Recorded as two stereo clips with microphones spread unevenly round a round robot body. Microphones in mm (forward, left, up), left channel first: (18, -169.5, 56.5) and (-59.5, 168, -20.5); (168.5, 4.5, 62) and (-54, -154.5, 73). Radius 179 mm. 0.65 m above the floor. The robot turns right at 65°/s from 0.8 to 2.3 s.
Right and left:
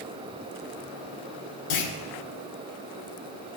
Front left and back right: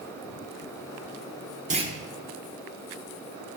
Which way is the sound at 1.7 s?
80° right.